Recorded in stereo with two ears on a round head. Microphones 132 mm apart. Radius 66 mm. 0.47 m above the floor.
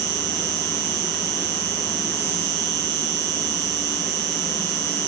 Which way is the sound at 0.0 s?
80° right.